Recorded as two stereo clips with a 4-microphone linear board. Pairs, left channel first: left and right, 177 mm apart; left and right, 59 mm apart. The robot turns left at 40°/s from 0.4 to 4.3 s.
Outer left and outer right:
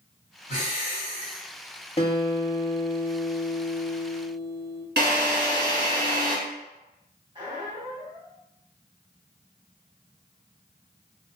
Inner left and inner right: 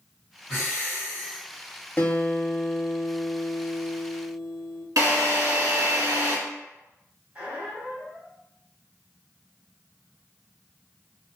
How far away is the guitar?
About 0.6 m.